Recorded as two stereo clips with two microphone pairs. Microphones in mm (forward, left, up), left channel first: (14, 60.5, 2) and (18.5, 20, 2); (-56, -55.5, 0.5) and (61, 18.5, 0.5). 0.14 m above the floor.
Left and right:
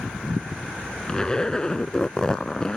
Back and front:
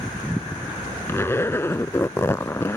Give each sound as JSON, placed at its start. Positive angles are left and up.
{"t": 1.1, "sound": "a zipper", "azimuth_deg": 155}